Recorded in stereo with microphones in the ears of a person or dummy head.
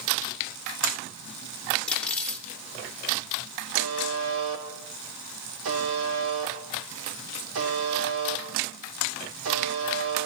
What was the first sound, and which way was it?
Cutlery clinking, 5° left (ahead or behind).